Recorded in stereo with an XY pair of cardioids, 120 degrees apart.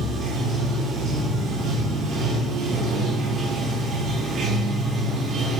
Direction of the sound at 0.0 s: 65° right.